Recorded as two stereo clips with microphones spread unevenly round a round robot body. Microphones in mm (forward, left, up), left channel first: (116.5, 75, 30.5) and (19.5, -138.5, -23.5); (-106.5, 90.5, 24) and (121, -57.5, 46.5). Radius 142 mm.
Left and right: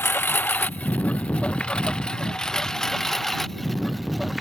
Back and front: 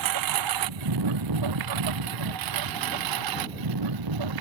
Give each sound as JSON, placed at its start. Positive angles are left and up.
{"t": 0.0, "sound": "a lawn mower", "azimuth_deg": -15}